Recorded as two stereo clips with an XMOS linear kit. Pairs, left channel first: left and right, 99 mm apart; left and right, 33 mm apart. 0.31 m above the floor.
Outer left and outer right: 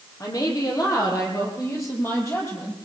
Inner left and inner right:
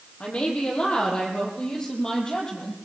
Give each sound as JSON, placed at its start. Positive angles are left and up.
{"t": 0.2, "sound": "a woman speaking", "side_deg": 35, "distance_m": 10.0}